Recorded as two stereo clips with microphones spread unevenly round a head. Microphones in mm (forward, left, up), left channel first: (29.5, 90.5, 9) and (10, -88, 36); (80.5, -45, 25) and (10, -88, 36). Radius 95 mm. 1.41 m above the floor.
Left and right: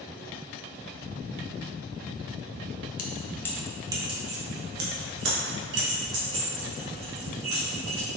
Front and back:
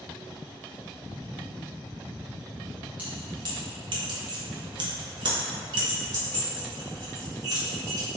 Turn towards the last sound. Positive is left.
turn(degrees=-115)